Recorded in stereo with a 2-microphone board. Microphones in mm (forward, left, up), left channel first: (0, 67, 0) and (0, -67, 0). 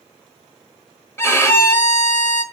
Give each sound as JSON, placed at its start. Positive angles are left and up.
{"t": 1.2, "sound": "a violin", "side_deg": 20, "distance_m": 1.1}